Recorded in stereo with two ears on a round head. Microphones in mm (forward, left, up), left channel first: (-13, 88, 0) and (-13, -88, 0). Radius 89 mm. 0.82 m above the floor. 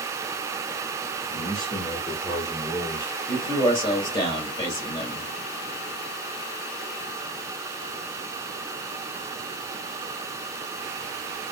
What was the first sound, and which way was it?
A man speaking, 5° right (ahead or behind).